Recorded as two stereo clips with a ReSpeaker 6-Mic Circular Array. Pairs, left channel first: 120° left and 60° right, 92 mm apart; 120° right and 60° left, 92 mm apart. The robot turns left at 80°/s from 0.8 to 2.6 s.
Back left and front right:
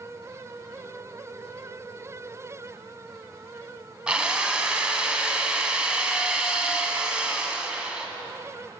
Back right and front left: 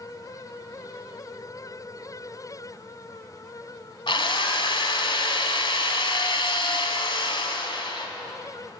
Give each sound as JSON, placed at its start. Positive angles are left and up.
{"t": 4.1, "sound": "a drill", "azimuth_deg": -140, "distance_m": 1.4}